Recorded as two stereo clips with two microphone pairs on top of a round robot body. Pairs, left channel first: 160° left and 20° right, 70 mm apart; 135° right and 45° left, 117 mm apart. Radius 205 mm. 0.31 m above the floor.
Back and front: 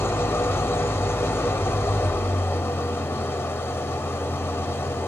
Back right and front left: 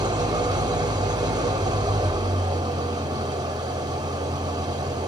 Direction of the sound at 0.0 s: 105° left.